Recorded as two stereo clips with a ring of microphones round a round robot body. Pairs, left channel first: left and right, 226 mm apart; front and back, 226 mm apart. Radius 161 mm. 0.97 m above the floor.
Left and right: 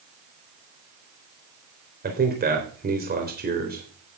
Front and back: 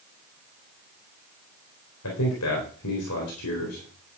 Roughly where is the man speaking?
Ahead right.